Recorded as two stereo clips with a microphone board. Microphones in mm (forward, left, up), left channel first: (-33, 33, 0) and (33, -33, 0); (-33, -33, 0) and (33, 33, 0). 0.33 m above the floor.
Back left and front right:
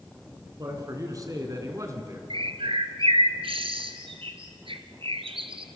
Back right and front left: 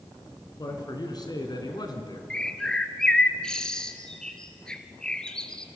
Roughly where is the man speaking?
Right.